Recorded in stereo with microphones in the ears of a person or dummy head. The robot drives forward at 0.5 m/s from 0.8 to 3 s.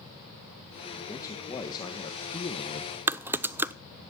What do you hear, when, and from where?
1.1 s a man speaking: 20° left (ahead or behind), 2.0 m; by 2.9 s 35° left (ahead or behind), 1.2 m
3.1 s typing on a keyboard: 10° right (ahead or behind), 0.5 m